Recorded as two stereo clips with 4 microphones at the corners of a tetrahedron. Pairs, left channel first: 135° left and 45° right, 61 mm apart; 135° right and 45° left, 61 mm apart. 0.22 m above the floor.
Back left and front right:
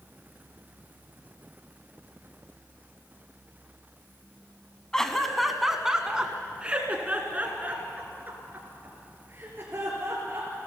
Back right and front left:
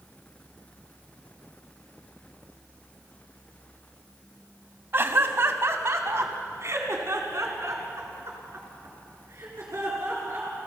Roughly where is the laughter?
Ahead left.